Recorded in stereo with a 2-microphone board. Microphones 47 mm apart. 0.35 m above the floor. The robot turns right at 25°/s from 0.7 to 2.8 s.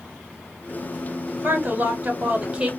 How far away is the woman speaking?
About 2 m.